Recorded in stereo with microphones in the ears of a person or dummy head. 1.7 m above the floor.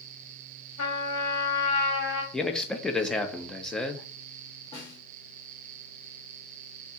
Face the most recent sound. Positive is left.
turn(degrees=25)  # may be behind; listen again after turning